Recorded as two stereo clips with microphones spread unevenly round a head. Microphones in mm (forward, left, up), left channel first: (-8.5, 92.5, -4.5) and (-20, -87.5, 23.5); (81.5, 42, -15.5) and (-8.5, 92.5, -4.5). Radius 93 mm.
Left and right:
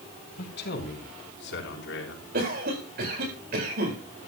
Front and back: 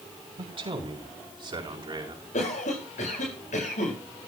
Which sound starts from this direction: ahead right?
A cough, at 2.3 s.